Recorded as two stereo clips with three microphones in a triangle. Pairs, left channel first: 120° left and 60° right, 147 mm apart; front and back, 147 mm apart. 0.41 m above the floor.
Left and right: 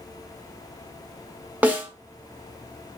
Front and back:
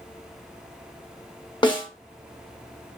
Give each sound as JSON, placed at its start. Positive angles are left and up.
{"t": 1.6, "sound": "a snare drum", "azimuth_deg": 10, "distance_m": 0.7}